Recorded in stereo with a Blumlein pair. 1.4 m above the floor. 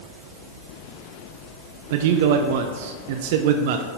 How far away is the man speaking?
About 0.6 m.